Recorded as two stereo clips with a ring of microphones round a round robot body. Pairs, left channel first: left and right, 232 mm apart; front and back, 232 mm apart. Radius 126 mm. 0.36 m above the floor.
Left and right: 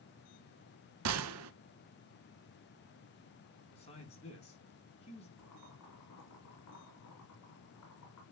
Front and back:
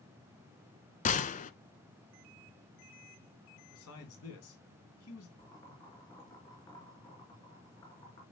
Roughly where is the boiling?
Left.